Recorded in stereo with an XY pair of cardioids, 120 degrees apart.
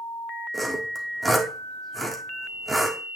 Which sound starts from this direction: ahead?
Sawing, at 0.5 s.